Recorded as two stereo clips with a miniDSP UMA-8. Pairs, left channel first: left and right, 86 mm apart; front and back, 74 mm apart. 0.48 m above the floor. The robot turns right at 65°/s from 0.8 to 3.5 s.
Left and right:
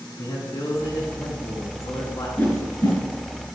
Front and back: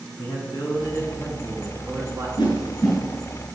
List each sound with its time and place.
0.2 s a man speaking: 30° left, 4.5 m; by 2.3 s 125° left, 4.5 m
2.4 s a whoosh: 20° left, 5 m; by 3.0 s 60° left, 5 m